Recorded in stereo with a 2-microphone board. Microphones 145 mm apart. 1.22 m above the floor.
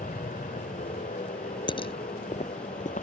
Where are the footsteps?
35° left (ahead or behind); by 3.0 s 60° left (ahead or behind).